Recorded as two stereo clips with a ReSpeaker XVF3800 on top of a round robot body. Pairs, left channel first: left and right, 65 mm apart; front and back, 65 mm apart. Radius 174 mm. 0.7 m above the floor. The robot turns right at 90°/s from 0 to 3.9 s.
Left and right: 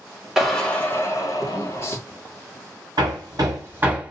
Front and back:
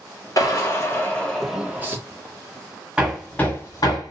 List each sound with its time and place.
0.4 s a drill: 5° right, 1.5 m; by 2.0 s 140° left, 1.5 m
3.0 s hammering: 105° right, 1.7 m; by 4.1 s 20° right, 1.7 m